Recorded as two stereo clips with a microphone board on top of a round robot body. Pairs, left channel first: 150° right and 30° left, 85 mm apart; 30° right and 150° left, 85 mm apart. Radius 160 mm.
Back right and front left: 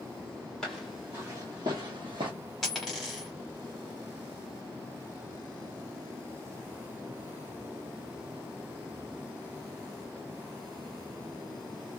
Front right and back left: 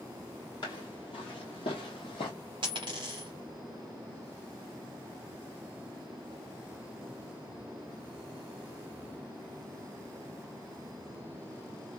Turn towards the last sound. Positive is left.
turn(degrees=120)